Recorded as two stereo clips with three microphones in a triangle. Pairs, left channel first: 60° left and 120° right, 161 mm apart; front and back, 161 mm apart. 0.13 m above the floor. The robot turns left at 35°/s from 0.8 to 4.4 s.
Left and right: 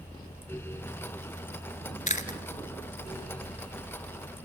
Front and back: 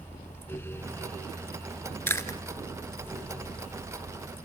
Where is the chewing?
75° left, 1.7 m; by 2.4 s 65° left, 1.7 m.